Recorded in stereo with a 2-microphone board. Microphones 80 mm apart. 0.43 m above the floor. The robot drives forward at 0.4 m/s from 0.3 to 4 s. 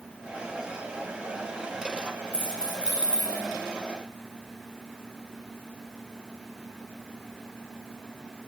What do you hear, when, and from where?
2.3 s keys jangling: 15° right (ahead or behind), 0.9 m; by 3.4 s 10° right (ahead or behind), 1.2 m